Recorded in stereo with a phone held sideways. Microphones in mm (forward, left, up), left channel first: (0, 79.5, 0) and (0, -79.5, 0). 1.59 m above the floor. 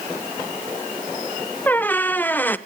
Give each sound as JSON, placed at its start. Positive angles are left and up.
{"t": 1.7, "sound": "a squeak", "side_deg": 10, "distance_m": 0.6}